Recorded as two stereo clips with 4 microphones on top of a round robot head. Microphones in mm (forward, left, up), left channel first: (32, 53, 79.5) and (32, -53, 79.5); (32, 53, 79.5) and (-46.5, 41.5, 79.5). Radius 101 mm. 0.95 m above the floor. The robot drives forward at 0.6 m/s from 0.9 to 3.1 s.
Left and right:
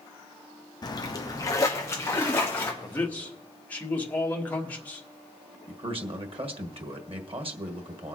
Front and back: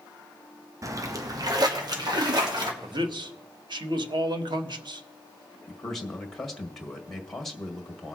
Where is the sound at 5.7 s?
80° right, 1.7 m.